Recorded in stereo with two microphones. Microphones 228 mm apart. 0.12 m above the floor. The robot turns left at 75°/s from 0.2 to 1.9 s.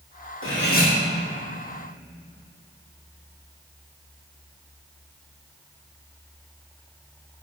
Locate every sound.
0.4 s cutlery clinking: 65° left, 2.5 m; by 0.9 s 30° left, 2.5 m